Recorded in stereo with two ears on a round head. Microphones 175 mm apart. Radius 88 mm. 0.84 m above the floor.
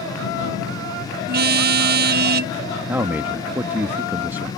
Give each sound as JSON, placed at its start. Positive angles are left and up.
{"t": 1.3, "sound": "a car horn", "side_deg": -55}
{"t": 2.9, "sound": "a man speaking", "side_deg": -10}